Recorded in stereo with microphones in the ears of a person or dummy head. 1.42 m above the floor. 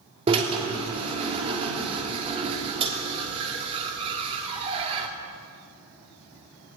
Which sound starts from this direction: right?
A drill, at 0.3 s.